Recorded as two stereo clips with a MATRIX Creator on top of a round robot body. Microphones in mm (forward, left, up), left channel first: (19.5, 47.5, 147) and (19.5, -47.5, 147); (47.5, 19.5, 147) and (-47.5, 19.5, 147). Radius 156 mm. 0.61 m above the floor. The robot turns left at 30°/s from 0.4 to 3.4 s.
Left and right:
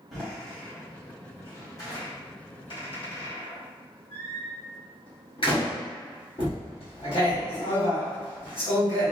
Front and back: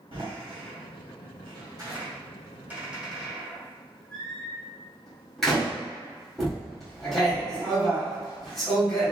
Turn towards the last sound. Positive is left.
turn(degrees=85)